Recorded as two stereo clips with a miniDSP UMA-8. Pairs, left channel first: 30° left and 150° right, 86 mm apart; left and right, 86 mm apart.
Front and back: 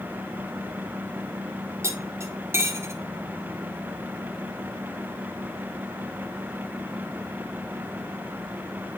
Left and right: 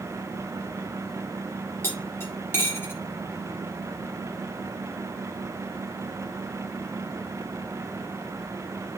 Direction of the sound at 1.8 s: 150° left.